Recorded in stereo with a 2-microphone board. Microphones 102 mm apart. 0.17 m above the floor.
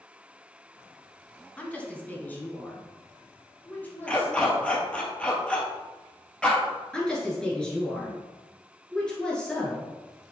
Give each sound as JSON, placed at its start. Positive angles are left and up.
{"t": 1.6, "sound": "a woman speaking", "side_deg": 10, "distance_m": 1.2}
{"t": 4.1, "sound": "a dog barking", "side_deg": 10, "distance_m": 1.3}
{"t": 6.9, "sound": "a woman speaking", "side_deg": 10, "distance_m": 3.0}